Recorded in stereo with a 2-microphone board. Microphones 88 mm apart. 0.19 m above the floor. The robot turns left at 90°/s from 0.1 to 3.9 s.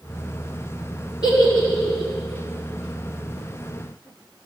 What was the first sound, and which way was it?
A giggle, 60° left (ahead or behind).